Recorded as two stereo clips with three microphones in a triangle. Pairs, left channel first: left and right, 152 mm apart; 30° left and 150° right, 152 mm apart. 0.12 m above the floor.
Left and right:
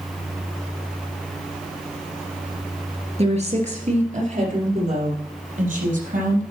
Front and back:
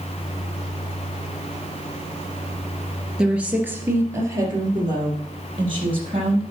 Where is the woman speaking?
65° right, 2.5 m; by 6.4 s 100° right, 4 m.